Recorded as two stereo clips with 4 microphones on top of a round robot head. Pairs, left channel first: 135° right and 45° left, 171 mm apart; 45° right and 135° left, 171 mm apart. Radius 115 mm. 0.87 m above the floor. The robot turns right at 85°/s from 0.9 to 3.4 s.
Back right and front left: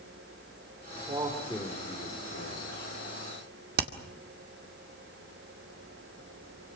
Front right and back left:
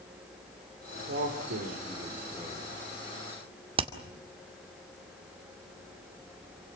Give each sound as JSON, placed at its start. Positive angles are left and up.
{"t": 1.1, "sound": "a man speaking", "azimuth_deg": 100, "distance_m": 4.0}
{"t": 3.8, "sound": "hammering", "azimuth_deg": 75, "distance_m": 2.0}